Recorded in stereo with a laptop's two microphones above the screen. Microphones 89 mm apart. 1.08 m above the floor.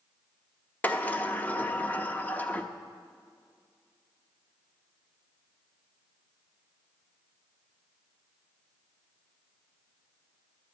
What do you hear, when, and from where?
0.8 s a sliding door: 20° left (ahead or behind), 0.6 m